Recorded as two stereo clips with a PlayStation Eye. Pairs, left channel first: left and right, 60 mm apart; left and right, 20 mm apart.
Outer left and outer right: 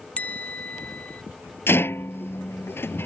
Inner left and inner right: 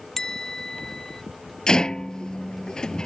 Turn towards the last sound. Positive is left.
turn(degrees=40)  # may be behind; listen again after turning